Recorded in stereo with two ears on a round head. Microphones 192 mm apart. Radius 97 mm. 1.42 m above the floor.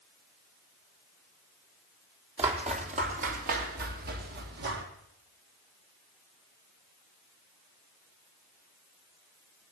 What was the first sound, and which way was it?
Footsteps, 30° right (ahead or behind).